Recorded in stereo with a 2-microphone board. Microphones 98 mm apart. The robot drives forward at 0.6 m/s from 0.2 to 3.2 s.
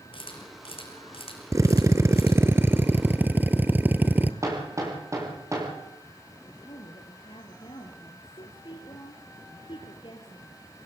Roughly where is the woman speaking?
Left.